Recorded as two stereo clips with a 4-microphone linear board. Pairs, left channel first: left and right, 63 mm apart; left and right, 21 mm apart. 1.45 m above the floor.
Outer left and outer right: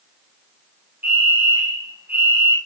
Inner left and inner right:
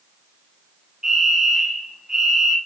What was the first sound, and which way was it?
A fire alarm, 35° right (ahead or behind).